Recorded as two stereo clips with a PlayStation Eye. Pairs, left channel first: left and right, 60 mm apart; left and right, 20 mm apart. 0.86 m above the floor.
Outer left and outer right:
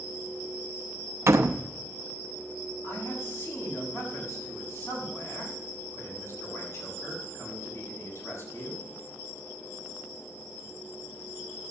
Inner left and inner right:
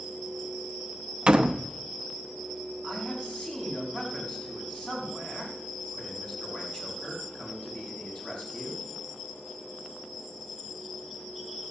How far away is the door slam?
About 0.7 m.